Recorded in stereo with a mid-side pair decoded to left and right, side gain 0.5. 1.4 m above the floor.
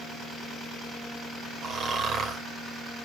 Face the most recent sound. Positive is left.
turn(degrees=-50)